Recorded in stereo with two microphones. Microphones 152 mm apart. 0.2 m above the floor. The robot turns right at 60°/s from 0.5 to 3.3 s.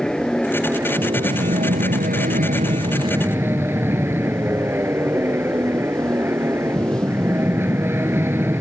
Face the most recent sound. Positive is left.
turn(degrees=-15)